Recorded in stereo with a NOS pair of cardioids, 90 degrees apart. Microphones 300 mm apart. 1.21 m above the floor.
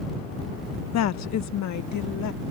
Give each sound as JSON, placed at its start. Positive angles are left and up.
{"t": 0.9, "sound": "a woman speaking", "azimuth_deg": 60}